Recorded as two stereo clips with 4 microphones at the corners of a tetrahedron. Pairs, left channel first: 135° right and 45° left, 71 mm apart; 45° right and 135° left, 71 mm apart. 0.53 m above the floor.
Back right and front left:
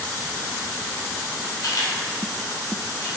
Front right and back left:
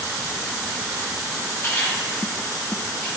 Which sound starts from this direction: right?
A camera shutter, at 1.6 s.